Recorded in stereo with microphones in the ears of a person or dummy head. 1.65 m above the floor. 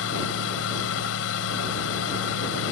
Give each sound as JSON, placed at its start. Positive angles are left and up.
{"t": 0.0, "sound": "a fan", "side_deg": 80}